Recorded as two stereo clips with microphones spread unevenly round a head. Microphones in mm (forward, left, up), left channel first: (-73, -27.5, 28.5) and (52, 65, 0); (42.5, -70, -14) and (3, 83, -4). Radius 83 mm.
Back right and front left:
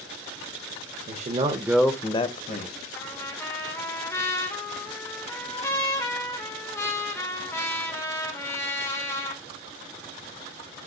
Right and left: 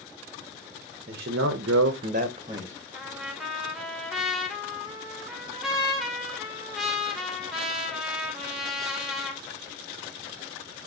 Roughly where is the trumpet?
Behind.